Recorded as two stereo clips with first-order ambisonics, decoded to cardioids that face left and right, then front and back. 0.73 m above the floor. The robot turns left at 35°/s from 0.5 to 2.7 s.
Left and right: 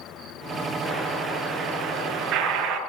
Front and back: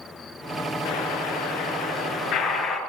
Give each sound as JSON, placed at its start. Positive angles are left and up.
{"t": 0.8, "sound": "an explosion", "azimuth_deg": 5, "distance_m": 5.0}